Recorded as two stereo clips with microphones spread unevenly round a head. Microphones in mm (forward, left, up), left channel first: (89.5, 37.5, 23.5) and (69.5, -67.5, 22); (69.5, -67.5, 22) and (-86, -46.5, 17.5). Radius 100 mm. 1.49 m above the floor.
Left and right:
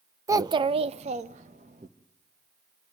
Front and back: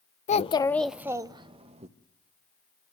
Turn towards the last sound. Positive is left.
turn(degrees=-140)